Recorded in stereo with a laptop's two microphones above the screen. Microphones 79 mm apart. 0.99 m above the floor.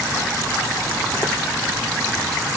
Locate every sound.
Only background noise.